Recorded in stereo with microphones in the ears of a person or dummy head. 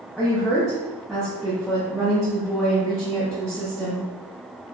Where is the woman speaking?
Centre (ahead or behind), 0.7 m.